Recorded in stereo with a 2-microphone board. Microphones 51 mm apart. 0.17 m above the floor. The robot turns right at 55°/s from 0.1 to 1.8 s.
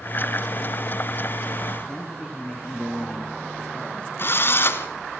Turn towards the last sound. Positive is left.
turn(degrees=50)  # may be behind; listen again after turning